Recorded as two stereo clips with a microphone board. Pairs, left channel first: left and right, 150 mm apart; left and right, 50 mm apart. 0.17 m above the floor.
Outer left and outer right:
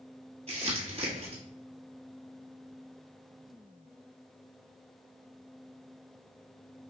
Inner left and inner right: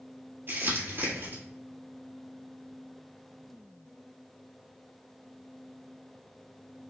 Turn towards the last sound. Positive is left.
turn(degrees=-45)  # may be behind; listen again after turning